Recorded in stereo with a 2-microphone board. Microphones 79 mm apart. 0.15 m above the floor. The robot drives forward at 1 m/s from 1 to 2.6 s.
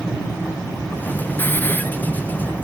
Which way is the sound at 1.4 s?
25° left (ahead or behind).